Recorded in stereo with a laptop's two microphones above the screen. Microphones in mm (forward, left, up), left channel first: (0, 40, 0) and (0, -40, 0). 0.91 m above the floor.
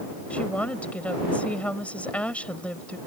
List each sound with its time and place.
0.3 s a woman speaking: 15° left (ahead or behind)